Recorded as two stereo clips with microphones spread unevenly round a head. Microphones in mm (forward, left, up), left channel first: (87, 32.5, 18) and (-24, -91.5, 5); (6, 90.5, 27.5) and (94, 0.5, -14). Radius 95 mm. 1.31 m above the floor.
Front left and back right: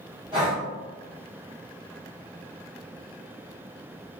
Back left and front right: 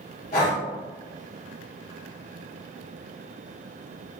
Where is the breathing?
160° left, 0.9 m.